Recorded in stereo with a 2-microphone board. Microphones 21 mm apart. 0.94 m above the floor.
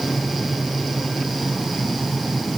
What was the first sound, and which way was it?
Only background noise.